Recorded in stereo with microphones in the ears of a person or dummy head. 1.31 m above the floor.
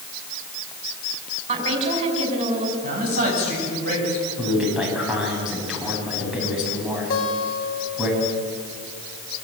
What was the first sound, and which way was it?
A woman speaking, 40° right (ahead or behind).